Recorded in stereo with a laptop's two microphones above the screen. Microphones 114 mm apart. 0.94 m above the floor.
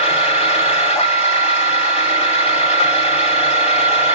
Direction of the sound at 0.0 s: 80° left.